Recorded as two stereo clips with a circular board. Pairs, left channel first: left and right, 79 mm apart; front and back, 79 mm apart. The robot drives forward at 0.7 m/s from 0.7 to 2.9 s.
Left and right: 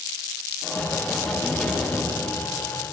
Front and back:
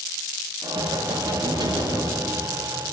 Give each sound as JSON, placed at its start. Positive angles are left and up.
{"t": 0.6, "sound": "knocking", "azimuth_deg": 175, "distance_m": 9.0}